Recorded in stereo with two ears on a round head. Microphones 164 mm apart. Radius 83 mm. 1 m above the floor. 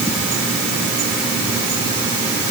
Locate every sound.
Only background noise.